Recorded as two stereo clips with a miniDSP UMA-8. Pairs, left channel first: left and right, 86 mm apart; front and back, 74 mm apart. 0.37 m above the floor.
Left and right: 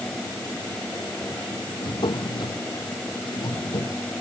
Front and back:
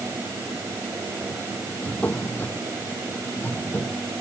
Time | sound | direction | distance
1.8 | a drawer | 65° left | ?